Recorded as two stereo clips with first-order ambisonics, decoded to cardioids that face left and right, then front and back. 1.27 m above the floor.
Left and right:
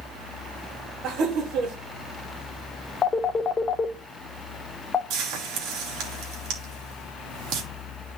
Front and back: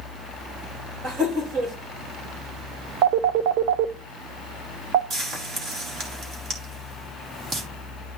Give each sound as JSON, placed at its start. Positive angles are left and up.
{"t": 1.0, "sound": "laughter", "azimuth_deg": -125, "distance_m": 2.5}
{"t": 3.0, "sound": "a phone ringing", "azimuth_deg": 160, "distance_m": 0.8}
{"t": 5.1, "sound": "frying", "azimuth_deg": -120, "distance_m": 2.5}